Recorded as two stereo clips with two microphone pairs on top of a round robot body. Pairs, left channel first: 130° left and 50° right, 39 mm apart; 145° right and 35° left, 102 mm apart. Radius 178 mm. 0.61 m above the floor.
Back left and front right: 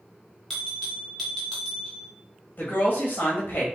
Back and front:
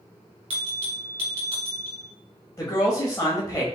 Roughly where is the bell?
Ahead left.